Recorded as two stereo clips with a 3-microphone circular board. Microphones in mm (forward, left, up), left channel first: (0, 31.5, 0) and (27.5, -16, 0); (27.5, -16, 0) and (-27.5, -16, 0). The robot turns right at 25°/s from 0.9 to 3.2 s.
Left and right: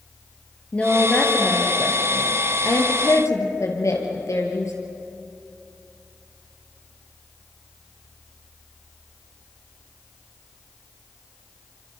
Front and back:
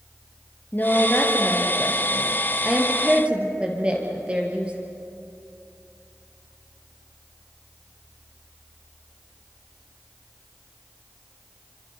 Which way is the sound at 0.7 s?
55° left.